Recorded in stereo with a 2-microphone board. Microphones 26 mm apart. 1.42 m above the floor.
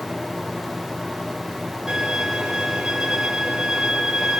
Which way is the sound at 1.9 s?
20° right (ahead or behind).